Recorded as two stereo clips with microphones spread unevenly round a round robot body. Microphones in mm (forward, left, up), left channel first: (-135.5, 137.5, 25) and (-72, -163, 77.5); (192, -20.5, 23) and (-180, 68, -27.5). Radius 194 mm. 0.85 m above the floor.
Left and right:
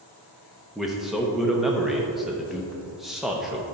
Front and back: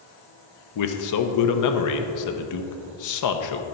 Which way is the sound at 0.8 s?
20° left.